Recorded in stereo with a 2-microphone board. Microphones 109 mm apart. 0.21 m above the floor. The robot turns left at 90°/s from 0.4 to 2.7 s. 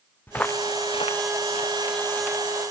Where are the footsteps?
20° left (ahead or behind), 0.9 m; by 2.7 s 20° right (ahead or behind), 4 m.